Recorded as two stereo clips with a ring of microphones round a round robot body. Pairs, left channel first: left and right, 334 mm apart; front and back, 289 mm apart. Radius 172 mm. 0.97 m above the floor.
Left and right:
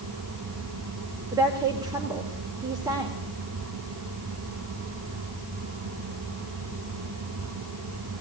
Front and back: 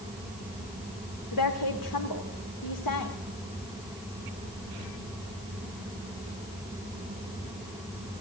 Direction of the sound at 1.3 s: 10° right.